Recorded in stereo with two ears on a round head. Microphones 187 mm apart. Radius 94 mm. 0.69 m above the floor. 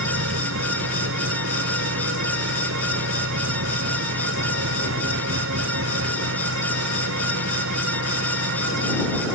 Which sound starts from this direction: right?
An engine running, at 0.0 s.